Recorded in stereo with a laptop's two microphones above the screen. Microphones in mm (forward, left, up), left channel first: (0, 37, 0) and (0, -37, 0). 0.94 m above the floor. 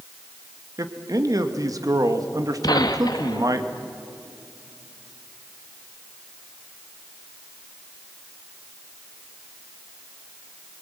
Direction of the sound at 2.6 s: 65° left (ahead or behind).